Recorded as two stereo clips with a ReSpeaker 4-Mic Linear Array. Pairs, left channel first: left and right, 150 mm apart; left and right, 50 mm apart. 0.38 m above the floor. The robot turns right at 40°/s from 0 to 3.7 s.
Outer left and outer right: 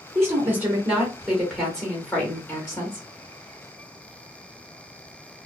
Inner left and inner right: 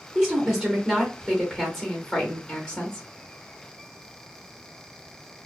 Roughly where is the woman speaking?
Centre.